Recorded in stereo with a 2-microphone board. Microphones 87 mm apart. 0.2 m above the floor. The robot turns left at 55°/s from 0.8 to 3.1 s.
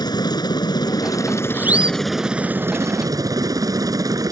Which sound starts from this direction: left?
A helicopter, at 0.0 s.